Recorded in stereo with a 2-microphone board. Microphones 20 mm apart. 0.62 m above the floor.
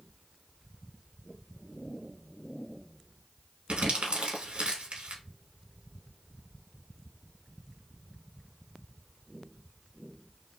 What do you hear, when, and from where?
3.7 s crumpling: 70° right (ahead or behind), 1.1 m